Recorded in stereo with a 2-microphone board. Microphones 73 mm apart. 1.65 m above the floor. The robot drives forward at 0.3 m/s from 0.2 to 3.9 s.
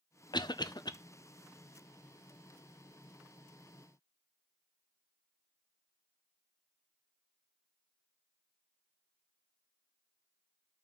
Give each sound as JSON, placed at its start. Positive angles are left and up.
{"t": 0.3, "sound": "a cough", "side_deg": 80, "distance_m": 0.7}